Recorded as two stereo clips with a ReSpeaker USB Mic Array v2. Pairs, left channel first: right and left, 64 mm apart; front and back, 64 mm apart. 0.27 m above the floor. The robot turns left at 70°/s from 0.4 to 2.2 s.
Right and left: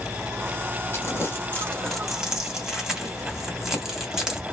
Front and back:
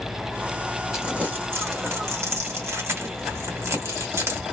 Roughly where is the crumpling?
Right.